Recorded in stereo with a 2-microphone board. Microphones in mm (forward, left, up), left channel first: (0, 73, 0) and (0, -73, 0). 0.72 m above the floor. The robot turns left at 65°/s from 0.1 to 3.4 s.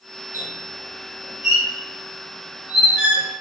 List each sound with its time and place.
0.3 s a squeak: 15° right (ahead or behind), 1.0 m; by 3.2 s 25° left (ahead or behind), 1.0 m